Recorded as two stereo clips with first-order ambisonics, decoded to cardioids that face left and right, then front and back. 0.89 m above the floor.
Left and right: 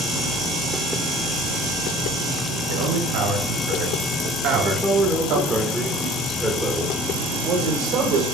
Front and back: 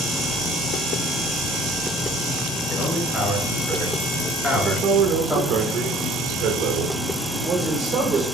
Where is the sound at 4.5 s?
170° right, 1.2 m.